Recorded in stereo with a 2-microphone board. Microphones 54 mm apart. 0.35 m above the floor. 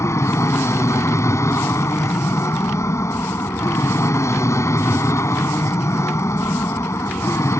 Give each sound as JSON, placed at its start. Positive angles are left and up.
{"t": 0.0, "sound": "an aircraft", "side_deg": 65}